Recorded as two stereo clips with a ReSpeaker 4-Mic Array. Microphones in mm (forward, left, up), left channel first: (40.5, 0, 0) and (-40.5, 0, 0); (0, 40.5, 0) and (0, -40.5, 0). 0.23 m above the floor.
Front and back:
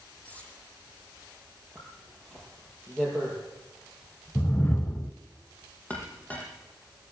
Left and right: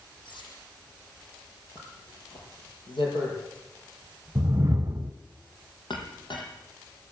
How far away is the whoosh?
About 1.0 m.